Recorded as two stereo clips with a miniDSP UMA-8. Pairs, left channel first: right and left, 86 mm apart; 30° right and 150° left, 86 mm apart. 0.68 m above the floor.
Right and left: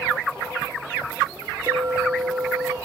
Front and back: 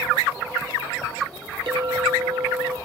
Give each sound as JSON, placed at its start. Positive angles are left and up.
{"t": 1.7, "sound": "a clink", "azimuth_deg": 135, "distance_m": 0.9}